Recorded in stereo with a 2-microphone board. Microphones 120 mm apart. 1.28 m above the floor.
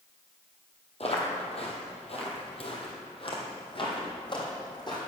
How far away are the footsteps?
About 1.9 m.